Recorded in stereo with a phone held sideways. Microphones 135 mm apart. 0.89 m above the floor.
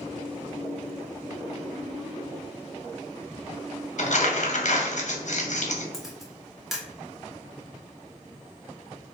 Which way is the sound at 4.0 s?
60° left (ahead or behind).